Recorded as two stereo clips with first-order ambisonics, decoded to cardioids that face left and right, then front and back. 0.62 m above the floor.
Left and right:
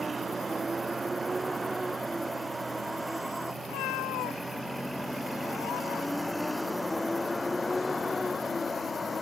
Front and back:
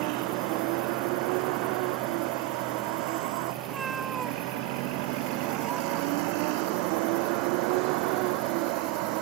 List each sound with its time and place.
0.0 s a vehicle: 165° right; by 9.2 s 165° left
3.6 s a cat meowing: 110° left